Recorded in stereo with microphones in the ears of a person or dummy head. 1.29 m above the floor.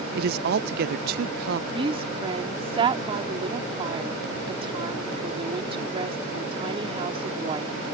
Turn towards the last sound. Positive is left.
turn(degrees=-30)  # may be behind; listen again after turning